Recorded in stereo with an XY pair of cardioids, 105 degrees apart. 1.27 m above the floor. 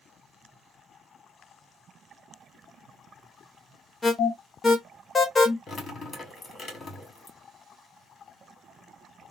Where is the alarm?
30° left, 1.0 m.